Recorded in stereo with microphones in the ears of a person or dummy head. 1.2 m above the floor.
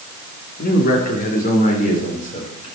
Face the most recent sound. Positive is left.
turn(degrees=40)  # may be behind; listen again after turning